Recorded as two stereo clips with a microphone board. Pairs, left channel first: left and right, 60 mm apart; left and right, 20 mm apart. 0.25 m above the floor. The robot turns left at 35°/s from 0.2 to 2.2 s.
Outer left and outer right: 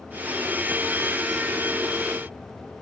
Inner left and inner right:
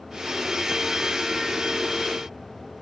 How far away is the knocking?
No knocking in this recording.